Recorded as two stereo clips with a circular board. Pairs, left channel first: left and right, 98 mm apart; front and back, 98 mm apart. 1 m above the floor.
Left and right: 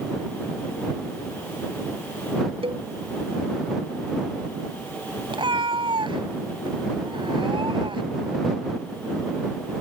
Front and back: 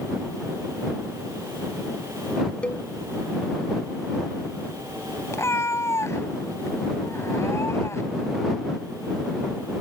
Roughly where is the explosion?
No explosion in this recording.